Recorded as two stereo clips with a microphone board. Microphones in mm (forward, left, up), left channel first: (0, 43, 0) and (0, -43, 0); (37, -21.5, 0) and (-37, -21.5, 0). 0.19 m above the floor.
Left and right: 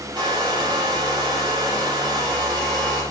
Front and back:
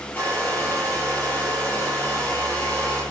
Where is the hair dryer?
65° right, 3 m.